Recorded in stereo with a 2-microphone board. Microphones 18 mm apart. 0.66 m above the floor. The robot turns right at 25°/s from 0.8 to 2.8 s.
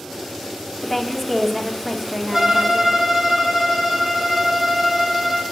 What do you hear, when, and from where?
0.8 s a woman speaking: 170° left, 1.0 m; by 3.0 s 140° right, 1.0 m
2.3 s a violin: 25° right (ahead or behind), 1.6 m; by 5.4 s 10° right (ahead or behind), 1.6 m